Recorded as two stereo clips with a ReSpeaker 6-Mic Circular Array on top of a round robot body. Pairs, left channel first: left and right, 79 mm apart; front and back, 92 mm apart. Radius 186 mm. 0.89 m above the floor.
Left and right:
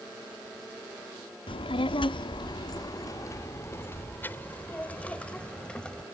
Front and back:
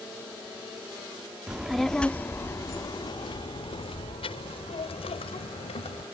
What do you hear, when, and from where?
1.5 s a child speaking: 100° left; by 6.0 s 10° left